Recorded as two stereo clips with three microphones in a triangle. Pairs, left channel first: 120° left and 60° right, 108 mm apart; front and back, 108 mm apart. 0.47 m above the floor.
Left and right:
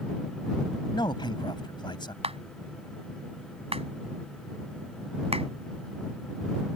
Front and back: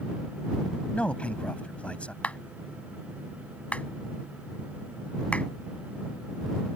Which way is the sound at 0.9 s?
80° left.